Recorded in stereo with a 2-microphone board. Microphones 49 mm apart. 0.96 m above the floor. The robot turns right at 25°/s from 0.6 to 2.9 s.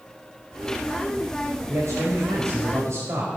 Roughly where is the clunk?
No clunk in this recording.